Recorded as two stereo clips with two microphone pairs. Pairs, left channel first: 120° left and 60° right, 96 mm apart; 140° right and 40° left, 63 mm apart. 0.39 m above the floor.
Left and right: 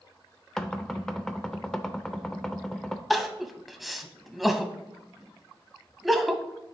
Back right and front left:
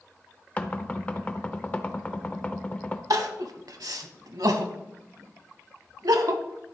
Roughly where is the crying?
Ahead left.